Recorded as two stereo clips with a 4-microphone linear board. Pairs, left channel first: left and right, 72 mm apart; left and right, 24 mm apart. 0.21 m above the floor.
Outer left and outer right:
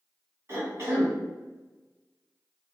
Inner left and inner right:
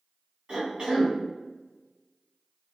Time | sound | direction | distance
0.5 | a cough | 40° right (ahead or behind) | 1.4 m